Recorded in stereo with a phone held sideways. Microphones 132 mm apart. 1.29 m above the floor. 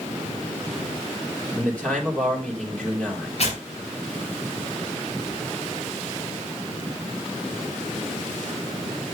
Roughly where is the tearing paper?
Left.